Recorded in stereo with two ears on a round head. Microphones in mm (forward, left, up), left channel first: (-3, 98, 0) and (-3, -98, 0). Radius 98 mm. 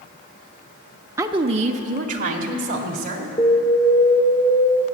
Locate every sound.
1.2 s a woman speaking: 15° right (ahead or behind), 0.7 m; by 3.3 s 40° right (ahead or behind), 3 m
3.4 s an alarm: 20° left (ahead or behind), 1.3 m